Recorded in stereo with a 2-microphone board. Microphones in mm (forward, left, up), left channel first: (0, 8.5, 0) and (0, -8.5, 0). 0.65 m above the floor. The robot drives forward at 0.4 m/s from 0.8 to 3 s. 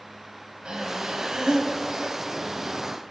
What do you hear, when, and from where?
0.7 s breathing: 75° right (ahead or behind), 2 m; by 2.2 s 85° right, 2.0 m